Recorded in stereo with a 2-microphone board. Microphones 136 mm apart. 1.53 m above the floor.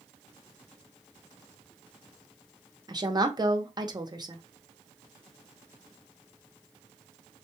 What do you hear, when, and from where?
2.9 s a woman speaking: 30° right (ahead or behind), 0.8 m